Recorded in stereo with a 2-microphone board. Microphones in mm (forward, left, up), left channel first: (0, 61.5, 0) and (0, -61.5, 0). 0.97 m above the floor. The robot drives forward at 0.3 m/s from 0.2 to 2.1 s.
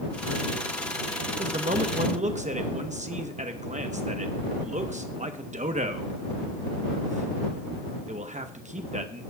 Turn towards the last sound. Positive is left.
turn(degrees=-75)  # may be behind; listen again after turning